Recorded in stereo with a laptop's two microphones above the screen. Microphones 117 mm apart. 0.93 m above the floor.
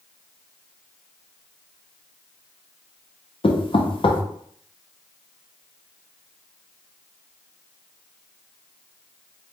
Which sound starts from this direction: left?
Knocking, at 3.4 s.